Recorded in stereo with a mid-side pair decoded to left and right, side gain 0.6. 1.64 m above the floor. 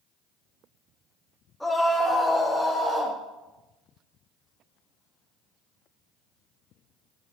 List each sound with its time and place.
1.6 s a scream: 5° left, 4 m; by 3.2 s straight ahead, 5.5 m